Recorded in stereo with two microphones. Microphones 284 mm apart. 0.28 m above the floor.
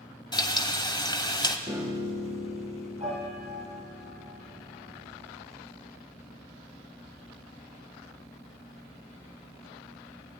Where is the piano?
25° right (ahead or behind), 5.5 m.